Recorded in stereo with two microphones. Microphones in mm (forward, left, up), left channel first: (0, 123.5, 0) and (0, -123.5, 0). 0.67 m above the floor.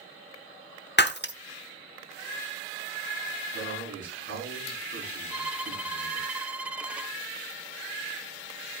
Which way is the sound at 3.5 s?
70° right (ahead or behind).